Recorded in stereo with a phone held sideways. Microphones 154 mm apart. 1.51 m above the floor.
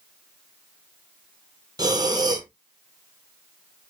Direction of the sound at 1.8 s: 25° right (ahead or behind).